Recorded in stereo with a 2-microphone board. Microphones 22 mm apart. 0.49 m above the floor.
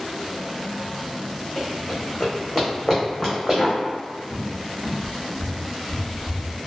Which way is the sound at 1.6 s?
60° left (ahead or behind).